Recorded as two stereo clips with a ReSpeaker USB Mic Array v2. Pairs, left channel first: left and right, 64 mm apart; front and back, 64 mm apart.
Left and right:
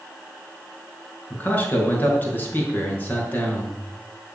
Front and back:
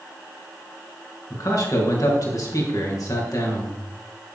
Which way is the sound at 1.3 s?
30° left.